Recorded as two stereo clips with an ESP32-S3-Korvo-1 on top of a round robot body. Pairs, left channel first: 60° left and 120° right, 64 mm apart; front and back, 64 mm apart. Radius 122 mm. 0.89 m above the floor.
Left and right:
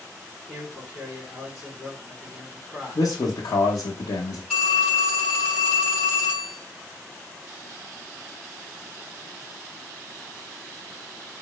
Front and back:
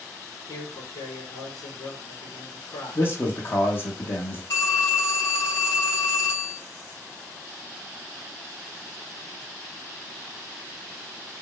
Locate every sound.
0.5 s a man speaking: 30° right, 3 m
3.0 s a man speaking: 45° left, 0.8 m
4.5 s a phone ringing: 25° right, 3 m